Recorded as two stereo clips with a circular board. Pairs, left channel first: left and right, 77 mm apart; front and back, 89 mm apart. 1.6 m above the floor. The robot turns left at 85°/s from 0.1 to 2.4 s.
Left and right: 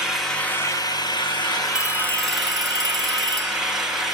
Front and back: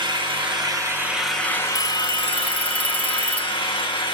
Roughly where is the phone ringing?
Ahead.